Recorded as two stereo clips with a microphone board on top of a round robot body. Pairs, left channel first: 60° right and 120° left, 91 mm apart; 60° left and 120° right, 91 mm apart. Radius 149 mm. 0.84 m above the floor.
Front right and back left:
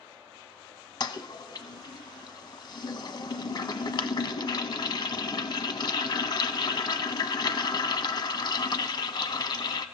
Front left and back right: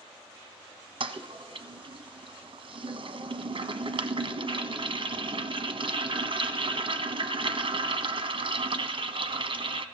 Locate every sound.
1.0 s a toilet flushing: 95° right, 1.0 m